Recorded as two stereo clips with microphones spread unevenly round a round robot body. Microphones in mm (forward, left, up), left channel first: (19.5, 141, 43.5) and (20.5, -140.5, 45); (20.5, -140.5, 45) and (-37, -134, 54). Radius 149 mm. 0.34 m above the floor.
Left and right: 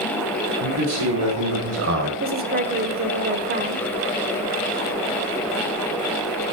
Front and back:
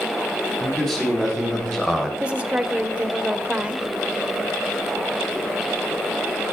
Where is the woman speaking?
120° right, 1.0 m.